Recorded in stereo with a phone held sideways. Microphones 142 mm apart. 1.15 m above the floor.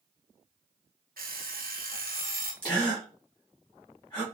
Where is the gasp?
30° left (ahead or behind), 1.5 m.